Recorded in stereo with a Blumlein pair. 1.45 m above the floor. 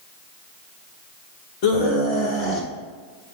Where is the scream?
45° left, 1.8 m; by 2.7 s 35° left, 2.5 m.